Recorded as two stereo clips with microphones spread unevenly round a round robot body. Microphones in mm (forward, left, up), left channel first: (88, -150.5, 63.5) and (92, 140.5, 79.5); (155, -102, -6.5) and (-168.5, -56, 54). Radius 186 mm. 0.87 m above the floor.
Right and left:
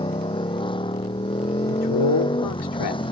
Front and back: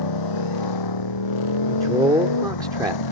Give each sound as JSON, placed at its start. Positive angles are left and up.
{"t": 0.0, "sound": "a motorcycle", "azimuth_deg": -15}
{"t": 1.7, "sound": "a man speaking", "azimuth_deg": -105}